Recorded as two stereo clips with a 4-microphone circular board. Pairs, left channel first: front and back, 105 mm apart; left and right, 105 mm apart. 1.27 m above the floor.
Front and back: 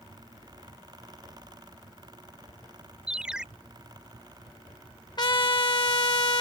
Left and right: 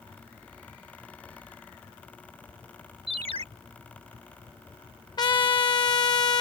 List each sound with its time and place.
3.1 s a ringtone: 100° right
5.2 s a trumpet: 45° left